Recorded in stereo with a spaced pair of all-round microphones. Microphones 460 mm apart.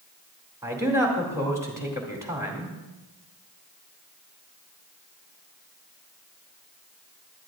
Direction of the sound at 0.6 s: 5° right (ahead or behind).